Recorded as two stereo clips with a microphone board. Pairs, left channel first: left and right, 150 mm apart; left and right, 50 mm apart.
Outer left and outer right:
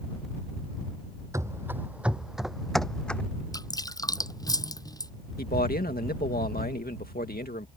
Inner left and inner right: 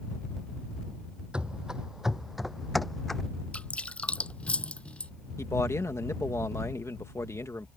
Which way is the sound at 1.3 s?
20° right (ahead or behind).